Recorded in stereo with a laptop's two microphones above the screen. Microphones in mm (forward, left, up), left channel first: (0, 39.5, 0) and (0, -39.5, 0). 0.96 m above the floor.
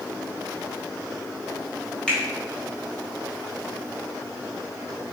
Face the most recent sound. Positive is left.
turn(degrees=10)  # may be behind; listen again after turning